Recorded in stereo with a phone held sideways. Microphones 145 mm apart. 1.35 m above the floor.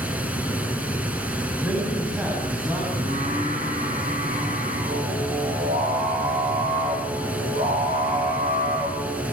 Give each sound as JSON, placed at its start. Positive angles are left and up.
{"t": 0.0, "sound": "running water", "side_deg": -10, "distance_m": 5.5}
{"t": 1.6, "sound": "a man speaking", "side_deg": -10, "distance_m": 9.0}
{"t": 3.0, "sound": "singing", "side_deg": -55, "distance_m": 8.0}